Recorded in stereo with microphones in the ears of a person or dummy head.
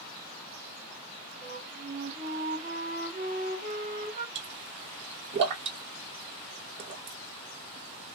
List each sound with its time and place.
1.4 s a flute: 50° right (ahead or behind), 1.2 m
4.3 s a pop: 30° right (ahead or behind), 0.5 m